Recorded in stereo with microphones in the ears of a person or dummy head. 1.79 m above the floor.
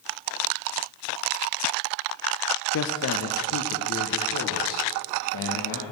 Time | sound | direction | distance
2.7 | a man speaking | 60° left (ahead or behind) | 0.8 m